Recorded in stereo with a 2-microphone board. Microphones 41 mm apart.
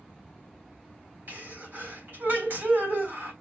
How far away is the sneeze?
About 3.5 m.